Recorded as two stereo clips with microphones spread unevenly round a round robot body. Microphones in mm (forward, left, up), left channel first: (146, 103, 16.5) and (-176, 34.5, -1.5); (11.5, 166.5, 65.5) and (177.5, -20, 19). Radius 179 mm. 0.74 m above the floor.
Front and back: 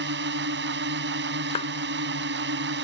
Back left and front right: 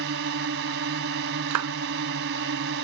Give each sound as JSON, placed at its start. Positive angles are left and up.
{"t": 0.0, "sound": "a drone", "azimuth_deg": -105}
{"t": 1.5, "sound": "a clap", "azimuth_deg": -65}